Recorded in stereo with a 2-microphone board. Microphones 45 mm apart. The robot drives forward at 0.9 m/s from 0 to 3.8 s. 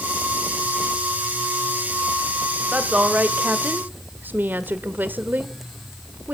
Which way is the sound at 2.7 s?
25° right (ahead or behind).